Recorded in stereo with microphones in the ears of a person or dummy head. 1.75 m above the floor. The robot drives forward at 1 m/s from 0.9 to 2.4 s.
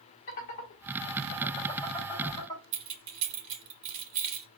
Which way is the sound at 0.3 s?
40° left (ahead or behind).